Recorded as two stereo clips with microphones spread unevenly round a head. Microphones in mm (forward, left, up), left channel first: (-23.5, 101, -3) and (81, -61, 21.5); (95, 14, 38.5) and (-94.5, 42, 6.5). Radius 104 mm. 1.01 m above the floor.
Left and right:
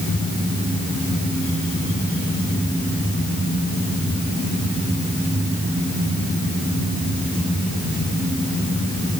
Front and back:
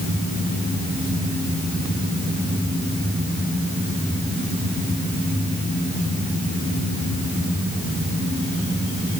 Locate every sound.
Only background noise.